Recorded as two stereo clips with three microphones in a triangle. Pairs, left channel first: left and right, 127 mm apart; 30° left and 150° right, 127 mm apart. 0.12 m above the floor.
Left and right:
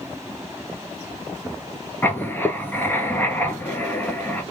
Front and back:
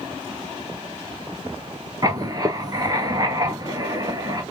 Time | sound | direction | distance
2.0 | writing | 160° left | 1.1 m